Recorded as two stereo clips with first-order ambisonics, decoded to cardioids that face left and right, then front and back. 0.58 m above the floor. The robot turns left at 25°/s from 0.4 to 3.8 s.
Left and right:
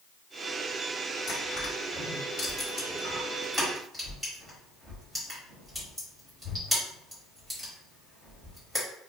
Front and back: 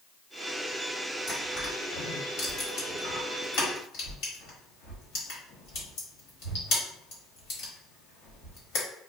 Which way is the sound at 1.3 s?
55° left.